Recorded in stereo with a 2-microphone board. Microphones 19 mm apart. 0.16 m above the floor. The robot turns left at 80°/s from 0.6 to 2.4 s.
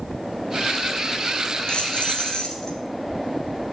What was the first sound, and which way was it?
Keys jangling, 110° left.